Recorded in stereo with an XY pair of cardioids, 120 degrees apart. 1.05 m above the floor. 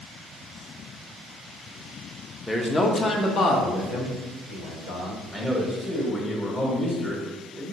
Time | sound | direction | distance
2.5 | a man speaking | 5° left | 0.6 m
5.3 | a man speaking | 15° left | 1.2 m